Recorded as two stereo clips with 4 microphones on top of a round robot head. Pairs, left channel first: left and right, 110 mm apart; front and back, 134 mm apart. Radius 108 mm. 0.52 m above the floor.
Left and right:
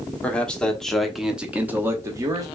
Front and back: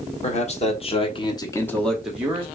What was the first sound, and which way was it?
A man speaking, 15° left.